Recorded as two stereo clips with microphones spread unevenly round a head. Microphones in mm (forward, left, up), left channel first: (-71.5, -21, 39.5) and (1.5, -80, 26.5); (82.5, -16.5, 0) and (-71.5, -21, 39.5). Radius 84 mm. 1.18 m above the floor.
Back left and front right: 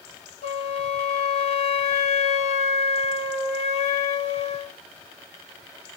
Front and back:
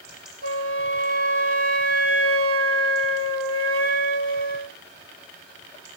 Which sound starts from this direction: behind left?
A flute, at 0.4 s.